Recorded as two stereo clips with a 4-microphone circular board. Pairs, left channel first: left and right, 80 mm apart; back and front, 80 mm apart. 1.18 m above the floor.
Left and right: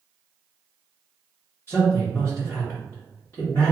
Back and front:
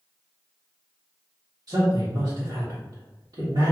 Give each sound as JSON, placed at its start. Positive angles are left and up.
{"t": 1.7, "sound": "a man speaking", "azimuth_deg": 30, "distance_m": 1.3}